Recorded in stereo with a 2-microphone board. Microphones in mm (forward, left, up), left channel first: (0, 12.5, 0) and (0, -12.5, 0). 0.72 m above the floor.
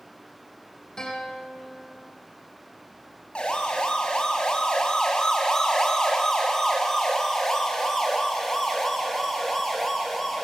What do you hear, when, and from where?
1.0 s a guitar: 35° left (ahead or behind), 6.5 m
3.4 s a siren: 50° left (ahead or behind), 5.5 m; by 10.4 s 5° left (ahead or behind), 7 m